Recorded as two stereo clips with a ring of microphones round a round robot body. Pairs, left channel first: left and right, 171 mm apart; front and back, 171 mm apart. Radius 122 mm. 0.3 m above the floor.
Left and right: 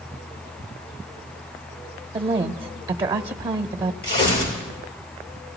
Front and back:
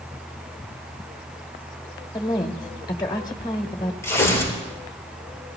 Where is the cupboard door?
No cupboard door in this recording.